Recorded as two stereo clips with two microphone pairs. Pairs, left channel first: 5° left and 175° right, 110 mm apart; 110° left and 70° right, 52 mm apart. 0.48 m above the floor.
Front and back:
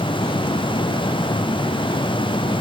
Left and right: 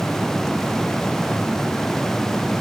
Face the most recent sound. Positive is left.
No sound to turn to.